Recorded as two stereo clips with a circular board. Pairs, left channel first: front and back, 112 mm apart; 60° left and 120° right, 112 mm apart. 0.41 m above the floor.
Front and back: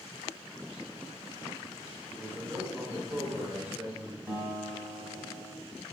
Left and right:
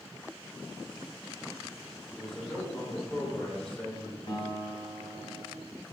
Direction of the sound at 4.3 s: 110° left.